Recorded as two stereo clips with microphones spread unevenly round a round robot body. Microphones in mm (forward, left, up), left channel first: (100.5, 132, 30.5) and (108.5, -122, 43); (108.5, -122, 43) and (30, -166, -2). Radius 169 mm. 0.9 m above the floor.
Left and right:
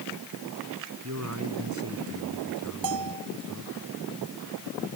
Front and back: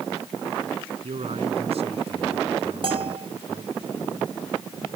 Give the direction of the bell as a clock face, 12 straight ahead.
4 o'clock.